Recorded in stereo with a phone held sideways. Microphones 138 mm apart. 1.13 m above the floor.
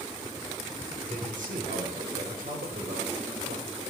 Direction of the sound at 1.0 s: 75° right (ahead or behind).